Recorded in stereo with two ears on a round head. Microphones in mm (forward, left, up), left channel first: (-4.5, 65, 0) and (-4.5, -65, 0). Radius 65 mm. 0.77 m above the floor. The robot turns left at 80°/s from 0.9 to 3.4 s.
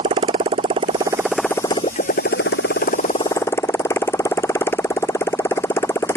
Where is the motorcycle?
145° right; by 6.2 s 15° left.